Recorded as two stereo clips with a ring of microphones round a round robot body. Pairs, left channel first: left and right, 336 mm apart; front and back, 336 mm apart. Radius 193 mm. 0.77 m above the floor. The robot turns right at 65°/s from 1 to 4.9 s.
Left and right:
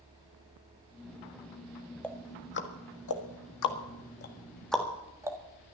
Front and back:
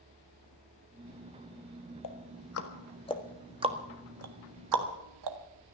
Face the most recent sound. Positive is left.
turn(degrees=-170)